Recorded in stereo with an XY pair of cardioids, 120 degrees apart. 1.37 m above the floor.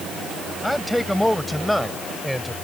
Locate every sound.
0.6 s a man speaking: 5° left